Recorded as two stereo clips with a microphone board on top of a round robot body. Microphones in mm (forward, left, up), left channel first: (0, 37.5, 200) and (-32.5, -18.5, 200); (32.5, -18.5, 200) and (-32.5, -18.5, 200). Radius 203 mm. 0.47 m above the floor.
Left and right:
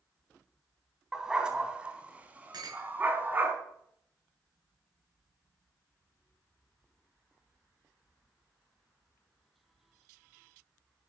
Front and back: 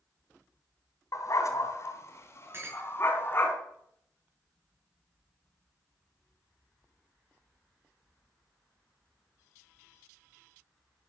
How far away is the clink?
About 6.5 m.